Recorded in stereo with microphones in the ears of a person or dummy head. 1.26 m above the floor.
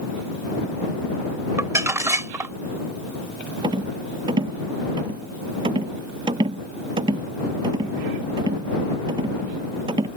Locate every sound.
1.6 s crumpling: 15° right (ahead or behind)
3.6 s a rattle: 25° right (ahead or behind)